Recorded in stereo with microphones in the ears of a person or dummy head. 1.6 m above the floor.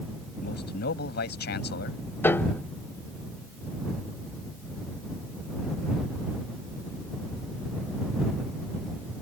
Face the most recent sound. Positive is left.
turn(degrees=15)  # may be behind; listen again after turning